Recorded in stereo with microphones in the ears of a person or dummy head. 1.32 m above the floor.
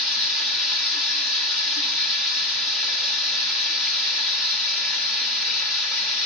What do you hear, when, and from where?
0.0 s running water: centre (ahead or behind), 1.1 m